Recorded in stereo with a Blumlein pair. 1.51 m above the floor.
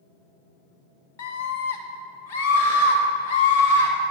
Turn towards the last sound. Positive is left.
turn(degrees=70)